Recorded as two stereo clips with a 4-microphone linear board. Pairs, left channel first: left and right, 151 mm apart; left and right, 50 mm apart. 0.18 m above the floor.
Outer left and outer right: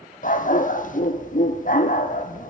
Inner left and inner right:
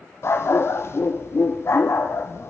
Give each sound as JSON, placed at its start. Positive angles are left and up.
{"t": 0.2, "sound": "a dog barking", "side_deg": 65, "distance_m": 1.8}